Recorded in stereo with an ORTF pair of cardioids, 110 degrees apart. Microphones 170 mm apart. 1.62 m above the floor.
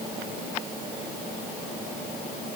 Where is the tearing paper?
No tearing paper in this recording.